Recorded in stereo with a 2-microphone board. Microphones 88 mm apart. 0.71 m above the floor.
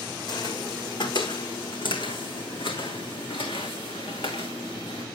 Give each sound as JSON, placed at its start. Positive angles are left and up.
{"t": 0.3, "sound": "footsteps", "side_deg": 50, "distance_m": 1.9}